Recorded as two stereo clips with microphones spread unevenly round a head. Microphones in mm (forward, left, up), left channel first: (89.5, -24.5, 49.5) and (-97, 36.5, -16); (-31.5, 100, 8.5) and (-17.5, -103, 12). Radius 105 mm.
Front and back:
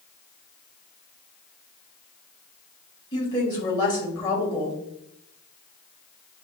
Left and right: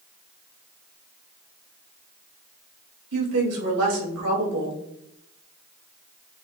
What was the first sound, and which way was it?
A woman speaking, 85° right.